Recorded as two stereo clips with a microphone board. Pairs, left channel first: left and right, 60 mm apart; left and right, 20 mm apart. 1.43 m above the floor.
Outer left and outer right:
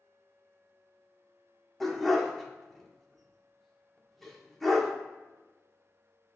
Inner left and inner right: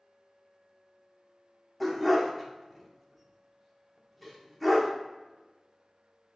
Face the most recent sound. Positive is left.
turn(degrees=5)  # may be behind; listen again after turning